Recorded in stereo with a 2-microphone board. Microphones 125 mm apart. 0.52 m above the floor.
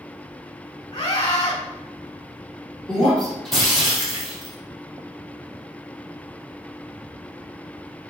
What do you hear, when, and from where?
0.9 s a scream: 35° left (ahead or behind), 3.5 m
2.9 s breaking glass: centre (ahead or behind), 4.5 m